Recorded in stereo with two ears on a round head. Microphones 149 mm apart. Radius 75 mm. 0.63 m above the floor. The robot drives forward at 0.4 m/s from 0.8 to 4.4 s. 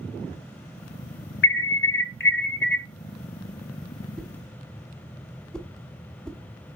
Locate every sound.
1.4 s an alarm: 75° left (ahead or behind), 1.0 m; by 2.9 s 65° left (ahead or behind), 1.1 m
4.2 s a whoosh: 5° left (ahead or behind), 0.7 m